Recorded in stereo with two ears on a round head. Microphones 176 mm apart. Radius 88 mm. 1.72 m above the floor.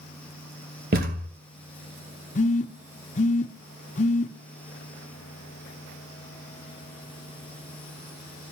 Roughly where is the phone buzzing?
Left.